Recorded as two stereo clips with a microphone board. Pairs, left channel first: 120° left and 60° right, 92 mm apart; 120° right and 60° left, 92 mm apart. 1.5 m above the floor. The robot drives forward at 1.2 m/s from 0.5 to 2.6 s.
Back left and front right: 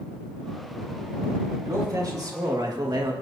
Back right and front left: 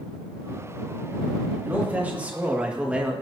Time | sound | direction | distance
1.6 | a man speaking | 10° right | 3 m